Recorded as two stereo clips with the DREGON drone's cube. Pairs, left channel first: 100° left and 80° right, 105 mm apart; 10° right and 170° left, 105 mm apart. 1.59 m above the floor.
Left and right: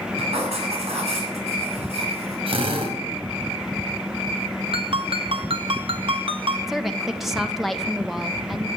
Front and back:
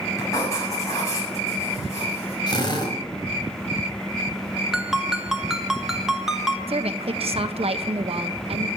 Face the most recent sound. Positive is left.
turn(degrees=-165)